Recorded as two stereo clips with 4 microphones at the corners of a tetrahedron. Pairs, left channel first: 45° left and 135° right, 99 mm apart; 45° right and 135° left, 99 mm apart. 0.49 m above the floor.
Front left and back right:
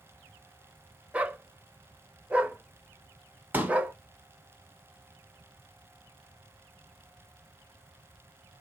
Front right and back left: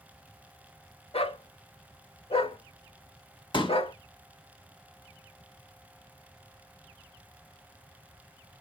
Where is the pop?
65° right, 1.1 m.